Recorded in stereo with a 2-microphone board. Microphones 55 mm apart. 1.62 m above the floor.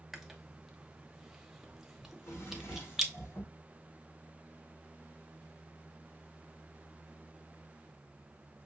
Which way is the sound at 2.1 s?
55° left (ahead or behind).